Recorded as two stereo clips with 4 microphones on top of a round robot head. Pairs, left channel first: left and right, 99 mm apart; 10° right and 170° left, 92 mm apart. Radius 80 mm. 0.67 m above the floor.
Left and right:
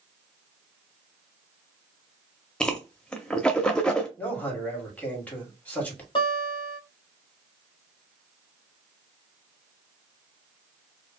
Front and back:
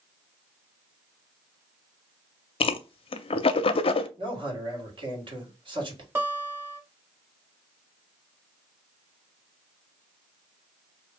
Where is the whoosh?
10° left, 0.5 m.